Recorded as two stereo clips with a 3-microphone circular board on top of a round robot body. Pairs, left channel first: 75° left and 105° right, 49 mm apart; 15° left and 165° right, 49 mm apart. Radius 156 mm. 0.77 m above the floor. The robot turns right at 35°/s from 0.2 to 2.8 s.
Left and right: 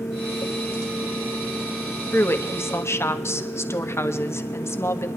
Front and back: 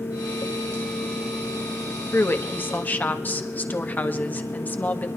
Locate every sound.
2.1 s a woman speaking: 40° left, 1.4 m; by 5.1 s 65° left, 1.4 m